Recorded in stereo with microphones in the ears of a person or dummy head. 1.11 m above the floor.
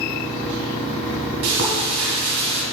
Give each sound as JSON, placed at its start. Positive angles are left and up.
{"t": 1.4, "sound": "frying", "side_deg": -65, "distance_m": 2.5}